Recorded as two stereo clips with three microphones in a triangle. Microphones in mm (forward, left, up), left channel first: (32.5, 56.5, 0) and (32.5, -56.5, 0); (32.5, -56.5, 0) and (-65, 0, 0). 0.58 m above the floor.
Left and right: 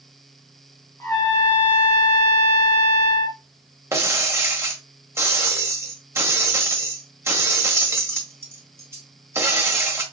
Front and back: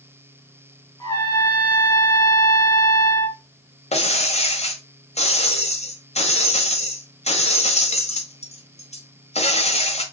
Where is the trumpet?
25° left, 1.7 m.